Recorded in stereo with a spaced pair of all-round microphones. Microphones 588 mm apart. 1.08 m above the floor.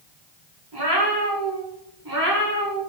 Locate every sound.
0.7 s a cat meowing: 40° right (ahead or behind), 1.1 m; by 2.8 s 25° right (ahead or behind), 1.1 m